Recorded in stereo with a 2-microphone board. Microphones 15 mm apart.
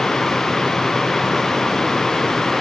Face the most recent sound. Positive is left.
No sound to turn to.